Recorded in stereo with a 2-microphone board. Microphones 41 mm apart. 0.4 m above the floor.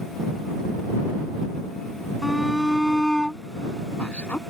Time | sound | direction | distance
2.2 | a shout | 5° right (ahead or behind) | ?